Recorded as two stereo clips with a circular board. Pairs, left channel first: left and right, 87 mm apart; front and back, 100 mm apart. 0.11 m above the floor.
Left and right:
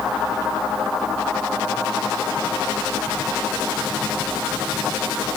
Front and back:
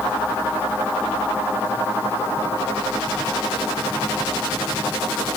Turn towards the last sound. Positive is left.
No sound to turn to.